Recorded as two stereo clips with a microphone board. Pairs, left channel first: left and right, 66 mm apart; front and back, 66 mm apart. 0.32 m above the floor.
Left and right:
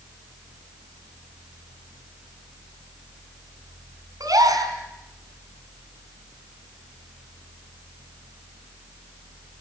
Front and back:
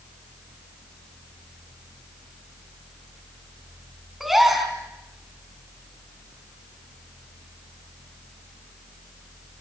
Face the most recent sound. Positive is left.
turn(degrees=-95)